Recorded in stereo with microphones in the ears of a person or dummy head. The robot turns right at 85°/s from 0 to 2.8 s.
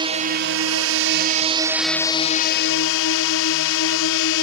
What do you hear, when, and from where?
0.0 s a drone: 160° right; by 4.4 s 80° left